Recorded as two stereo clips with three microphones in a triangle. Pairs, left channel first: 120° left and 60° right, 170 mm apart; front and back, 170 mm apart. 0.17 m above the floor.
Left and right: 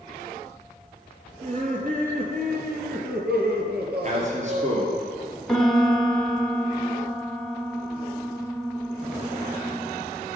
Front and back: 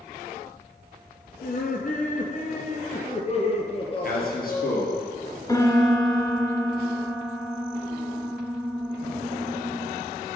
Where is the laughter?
20° right, 2.5 m; by 5.0 s 65° right, 3.5 m.